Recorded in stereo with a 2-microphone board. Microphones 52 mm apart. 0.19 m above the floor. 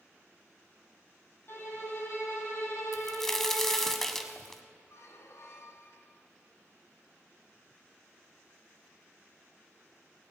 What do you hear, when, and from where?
1.5 s a violin: 45° left (ahead or behind), 2 m
2.9 s a crack: 10° left (ahead or behind), 0.8 m
4.9 s a squeak: 60° left (ahead or behind), 0.9 m